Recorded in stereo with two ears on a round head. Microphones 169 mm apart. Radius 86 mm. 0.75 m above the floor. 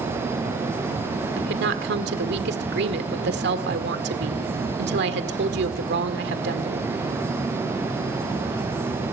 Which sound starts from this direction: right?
A woman speaking, at 1.4 s.